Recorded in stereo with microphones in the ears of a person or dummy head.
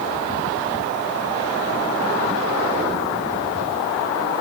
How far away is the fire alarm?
No fire alarm in this recording.